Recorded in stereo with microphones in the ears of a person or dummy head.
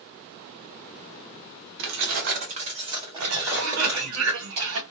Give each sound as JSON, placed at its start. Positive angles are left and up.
{"t": 1.8, "sound": "keys jangling", "side_deg": -60, "distance_m": 0.6}
{"t": 3.2, "sound": "a cough", "side_deg": -65, "distance_m": 1.3}